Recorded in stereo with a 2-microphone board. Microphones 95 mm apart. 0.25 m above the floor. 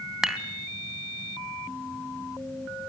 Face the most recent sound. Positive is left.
turn(degrees=-5)  # may be behind; listen again after turning